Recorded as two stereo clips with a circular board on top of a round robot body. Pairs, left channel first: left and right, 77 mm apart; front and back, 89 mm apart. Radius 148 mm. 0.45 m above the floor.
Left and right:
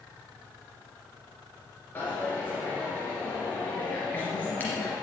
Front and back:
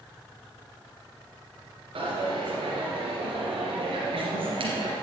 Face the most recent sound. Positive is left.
turn(degrees=160)